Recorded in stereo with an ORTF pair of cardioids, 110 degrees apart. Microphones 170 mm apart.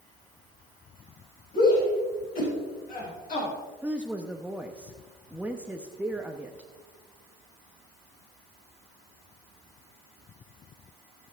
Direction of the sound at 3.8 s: 5° right.